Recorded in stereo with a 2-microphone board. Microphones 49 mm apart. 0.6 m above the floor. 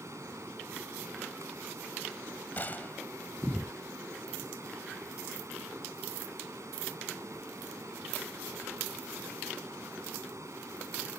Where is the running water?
80° right.